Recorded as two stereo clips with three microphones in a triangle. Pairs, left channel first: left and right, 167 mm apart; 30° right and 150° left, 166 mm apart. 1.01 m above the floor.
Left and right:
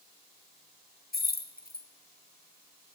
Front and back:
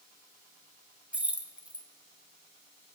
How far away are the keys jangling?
About 0.5 m.